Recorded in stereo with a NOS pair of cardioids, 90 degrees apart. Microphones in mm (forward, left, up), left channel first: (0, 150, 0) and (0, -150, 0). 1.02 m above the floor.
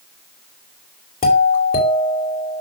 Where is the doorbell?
30° left, 2.5 m.